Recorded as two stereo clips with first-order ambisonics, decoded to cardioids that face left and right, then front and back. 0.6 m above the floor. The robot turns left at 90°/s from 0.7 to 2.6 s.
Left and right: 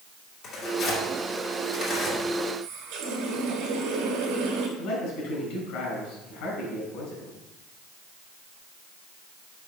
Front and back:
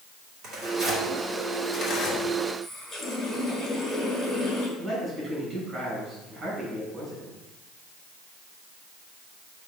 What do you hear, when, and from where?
0.4 s tearing paper: 140° left, 1.9 m; by 2.2 s 5° left, 1.9 m
2.6 s a running tap: 70° right, 1.5 m
4.8 s a man speaking: 105° left, 3 m